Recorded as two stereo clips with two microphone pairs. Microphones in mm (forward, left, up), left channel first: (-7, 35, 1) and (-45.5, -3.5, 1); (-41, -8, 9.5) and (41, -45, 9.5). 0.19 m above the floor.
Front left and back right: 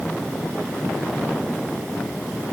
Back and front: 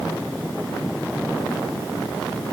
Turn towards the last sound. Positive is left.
No sound to turn to.